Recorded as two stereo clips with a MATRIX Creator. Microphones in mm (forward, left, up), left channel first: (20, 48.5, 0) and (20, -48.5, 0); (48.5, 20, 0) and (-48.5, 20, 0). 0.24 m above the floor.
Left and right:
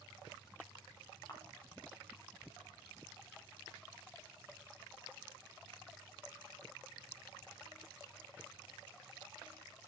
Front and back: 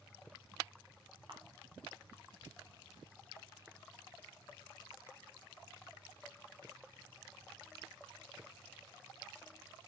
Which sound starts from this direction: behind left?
A camera shutter, at 1.3 s.